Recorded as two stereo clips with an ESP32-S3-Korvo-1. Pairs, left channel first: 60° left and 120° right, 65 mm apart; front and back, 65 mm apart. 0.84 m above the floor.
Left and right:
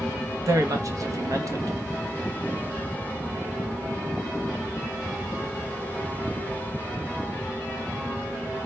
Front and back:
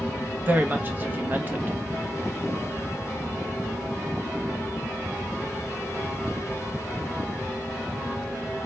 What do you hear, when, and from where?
0.5 s a woman speaking: 125° right, 0.7 m